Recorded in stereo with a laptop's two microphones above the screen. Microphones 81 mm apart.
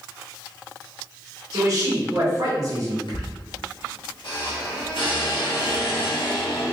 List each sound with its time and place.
1.5 s a man speaking: 40° right (ahead or behind), 1.3 m
3.1 s a squeak: 80° left, 1.0 m